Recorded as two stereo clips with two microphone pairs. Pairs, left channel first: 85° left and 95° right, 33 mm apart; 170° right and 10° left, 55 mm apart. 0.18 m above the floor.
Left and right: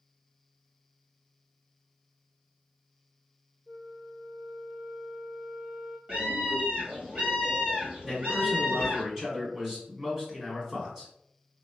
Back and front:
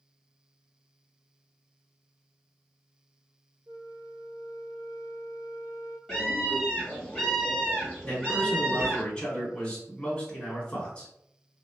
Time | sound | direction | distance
3.7 | a flute | 5° left | 0.5 m
6.1 | a scream | 75° right | 1.8 m
8.0 | a man speaking | 125° right | 1.5 m